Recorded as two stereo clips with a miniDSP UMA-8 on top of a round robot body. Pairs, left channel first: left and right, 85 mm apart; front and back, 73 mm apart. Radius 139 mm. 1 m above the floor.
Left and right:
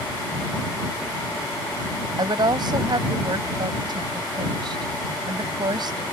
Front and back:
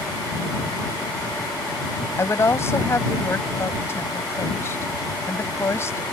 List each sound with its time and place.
2.2 s a woman speaking: 55° right